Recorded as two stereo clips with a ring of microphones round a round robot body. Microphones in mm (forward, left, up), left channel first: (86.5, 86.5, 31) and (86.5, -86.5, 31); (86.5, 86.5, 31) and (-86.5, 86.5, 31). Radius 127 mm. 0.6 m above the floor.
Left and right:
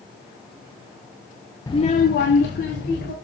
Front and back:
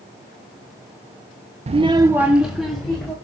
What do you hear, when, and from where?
1.7 s a child speaking: 155° left, 0.5 m; by 3.1 s 85° left, 1.9 m